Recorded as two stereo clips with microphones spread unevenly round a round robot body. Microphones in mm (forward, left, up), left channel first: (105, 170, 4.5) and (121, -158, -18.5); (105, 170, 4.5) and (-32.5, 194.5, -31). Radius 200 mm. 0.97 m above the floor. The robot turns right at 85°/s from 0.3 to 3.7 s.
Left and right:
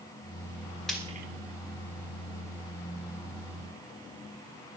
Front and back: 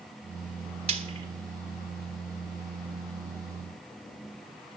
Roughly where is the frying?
Behind.